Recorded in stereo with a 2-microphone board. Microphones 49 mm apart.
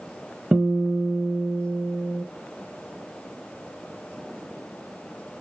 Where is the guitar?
35° right (ahead or behind), 0.6 m.